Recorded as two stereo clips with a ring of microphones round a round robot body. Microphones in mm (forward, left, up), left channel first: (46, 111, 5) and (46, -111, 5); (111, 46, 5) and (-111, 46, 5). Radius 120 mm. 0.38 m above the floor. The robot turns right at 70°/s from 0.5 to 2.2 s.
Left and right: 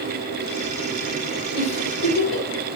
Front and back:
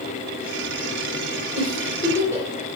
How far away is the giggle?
About 3 m.